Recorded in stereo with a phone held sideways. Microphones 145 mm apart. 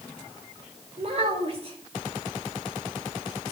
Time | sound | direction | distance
1.0 | a child speaking | 40° right (ahead or behind) | 2.5 m